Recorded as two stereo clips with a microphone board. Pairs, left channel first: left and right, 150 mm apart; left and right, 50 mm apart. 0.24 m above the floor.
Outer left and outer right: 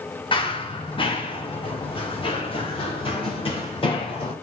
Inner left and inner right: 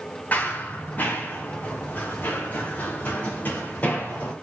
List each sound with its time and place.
0.3 s running footsteps: 35° left (ahead or behind), 1.9 m